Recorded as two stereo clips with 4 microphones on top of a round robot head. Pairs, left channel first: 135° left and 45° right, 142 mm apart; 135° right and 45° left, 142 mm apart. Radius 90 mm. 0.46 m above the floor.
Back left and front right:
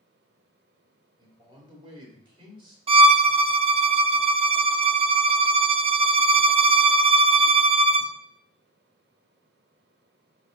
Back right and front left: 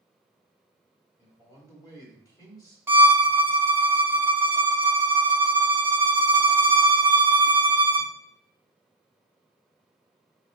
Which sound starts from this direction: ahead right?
A violin, at 2.9 s.